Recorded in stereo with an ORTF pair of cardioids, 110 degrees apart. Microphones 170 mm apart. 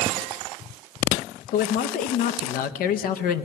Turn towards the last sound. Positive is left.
turn(degrees=60)